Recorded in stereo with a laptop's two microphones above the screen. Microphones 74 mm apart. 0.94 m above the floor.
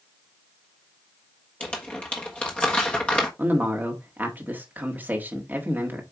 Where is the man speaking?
25° right (ahead or behind), 1.6 m.